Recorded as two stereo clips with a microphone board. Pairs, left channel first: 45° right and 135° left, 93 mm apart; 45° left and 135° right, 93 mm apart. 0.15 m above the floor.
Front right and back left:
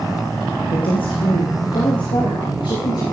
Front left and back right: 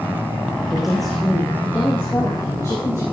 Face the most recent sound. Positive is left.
turn(degrees=-10)